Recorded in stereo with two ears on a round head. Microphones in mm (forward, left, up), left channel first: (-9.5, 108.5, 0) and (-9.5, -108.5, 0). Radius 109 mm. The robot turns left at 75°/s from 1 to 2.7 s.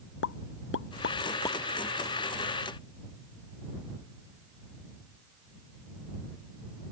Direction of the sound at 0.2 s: 50° left (ahead or behind).